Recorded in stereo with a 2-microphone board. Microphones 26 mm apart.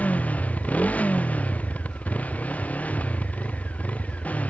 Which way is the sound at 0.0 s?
75° left (ahead or behind).